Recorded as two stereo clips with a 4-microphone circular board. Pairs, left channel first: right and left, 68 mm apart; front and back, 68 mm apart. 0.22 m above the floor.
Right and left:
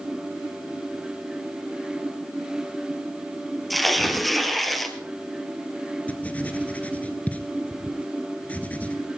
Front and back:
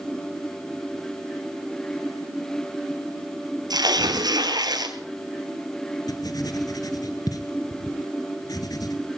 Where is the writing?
20° right, 1.2 m.